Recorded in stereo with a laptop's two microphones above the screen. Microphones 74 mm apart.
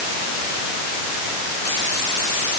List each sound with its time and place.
Only background noise.